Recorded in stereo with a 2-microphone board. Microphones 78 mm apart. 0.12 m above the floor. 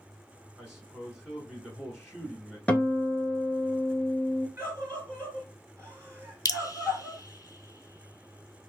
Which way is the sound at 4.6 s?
35° right (ahead or behind).